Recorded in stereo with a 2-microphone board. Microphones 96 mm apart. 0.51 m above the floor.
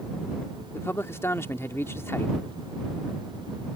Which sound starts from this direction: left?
A man speaking, at 0.7 s.